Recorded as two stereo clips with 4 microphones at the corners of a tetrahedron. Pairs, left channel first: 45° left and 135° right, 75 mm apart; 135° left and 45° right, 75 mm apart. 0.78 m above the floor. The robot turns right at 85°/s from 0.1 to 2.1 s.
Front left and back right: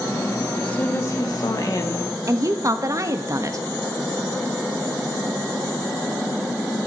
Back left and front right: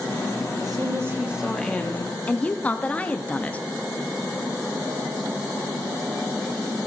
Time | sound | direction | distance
0.6 | a woman speaking | 30° right | 1.1 m
2.3 | a woman speaking | 160° right | 0.6 m